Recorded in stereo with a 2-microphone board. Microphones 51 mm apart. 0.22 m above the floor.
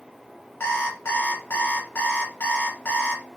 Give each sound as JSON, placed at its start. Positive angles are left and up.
{"t": 0.6, "sound": "an alarm clock", "side_deg": 45, "distance_m": 1.1}